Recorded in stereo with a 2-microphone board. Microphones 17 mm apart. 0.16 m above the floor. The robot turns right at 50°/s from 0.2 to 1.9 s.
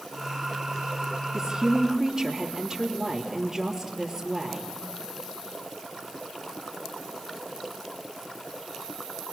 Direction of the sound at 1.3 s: 30° right (ahead or behind).